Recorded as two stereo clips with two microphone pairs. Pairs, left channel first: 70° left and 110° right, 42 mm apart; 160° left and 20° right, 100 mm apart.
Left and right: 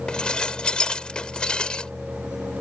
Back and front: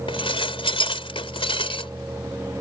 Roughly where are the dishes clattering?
Behind left.